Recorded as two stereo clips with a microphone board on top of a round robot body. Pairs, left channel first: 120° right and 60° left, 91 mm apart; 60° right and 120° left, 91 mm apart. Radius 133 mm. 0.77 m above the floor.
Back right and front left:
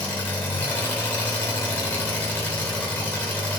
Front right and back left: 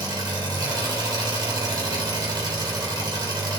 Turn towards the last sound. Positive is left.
turn(degrees=165)